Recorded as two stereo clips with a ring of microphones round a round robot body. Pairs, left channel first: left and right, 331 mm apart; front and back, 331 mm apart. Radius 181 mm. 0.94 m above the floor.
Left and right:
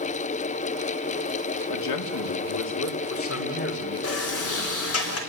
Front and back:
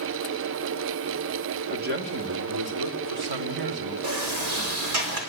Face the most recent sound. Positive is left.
turn(degrees=135)